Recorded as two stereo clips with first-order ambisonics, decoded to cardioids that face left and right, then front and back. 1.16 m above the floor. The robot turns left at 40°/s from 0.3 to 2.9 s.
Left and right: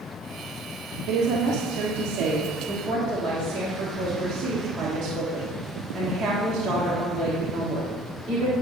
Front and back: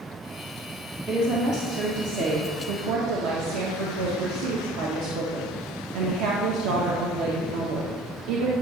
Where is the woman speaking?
100° right, 1.4 m; by 8.5 s 175° right, 1.4 m.